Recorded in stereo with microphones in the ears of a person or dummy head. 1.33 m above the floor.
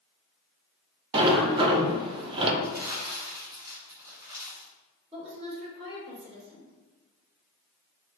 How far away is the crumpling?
About 1.3 m.